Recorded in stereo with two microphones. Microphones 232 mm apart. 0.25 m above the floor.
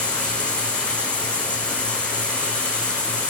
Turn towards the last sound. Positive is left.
turn(degrees=5)  # may be behind; listen again after turning